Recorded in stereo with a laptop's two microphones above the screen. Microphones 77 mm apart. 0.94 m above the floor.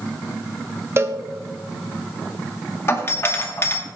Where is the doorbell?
35° left (ahead or behind), 1.5 m.